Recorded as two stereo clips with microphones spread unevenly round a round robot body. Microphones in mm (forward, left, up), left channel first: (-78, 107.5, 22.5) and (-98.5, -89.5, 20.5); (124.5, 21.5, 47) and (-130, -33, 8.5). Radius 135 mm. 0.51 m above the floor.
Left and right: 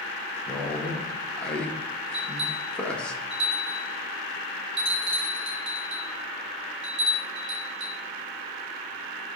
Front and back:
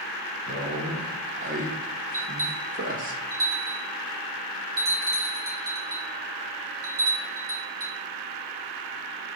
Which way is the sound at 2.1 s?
125° right.